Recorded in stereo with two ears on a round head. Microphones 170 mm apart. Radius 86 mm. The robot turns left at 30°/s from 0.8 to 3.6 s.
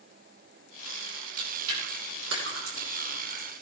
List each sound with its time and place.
1.4 s chewing: 75° right (ahead or behind), 6 m; by 3.5 s 35° right (ahead or behind), 6 m